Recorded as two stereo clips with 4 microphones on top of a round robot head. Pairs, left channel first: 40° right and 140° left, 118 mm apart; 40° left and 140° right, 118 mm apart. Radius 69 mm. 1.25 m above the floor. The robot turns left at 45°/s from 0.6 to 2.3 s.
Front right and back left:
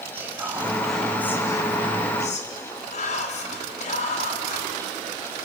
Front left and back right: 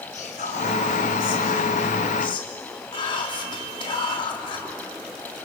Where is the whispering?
65° left, 3.5 m; by 4.7 s 10° right, 3.5 m.